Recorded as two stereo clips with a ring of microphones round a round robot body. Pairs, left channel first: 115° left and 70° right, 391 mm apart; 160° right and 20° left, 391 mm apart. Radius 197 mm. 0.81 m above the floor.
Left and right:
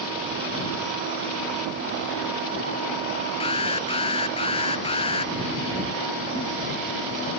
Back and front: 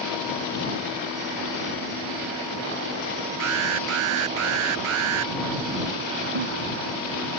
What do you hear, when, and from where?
3.4 s an alarm: 35° left
6.3 s a giggle: 30° left